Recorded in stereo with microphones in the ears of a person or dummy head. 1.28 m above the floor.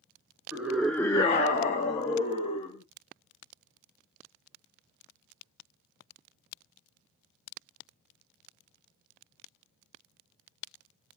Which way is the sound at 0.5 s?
10° right (ahead or behind).